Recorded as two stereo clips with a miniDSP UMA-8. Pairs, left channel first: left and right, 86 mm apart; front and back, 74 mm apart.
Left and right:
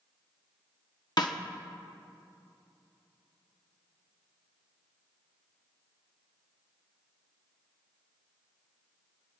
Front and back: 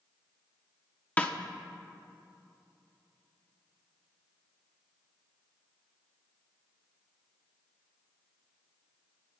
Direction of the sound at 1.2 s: 65° left.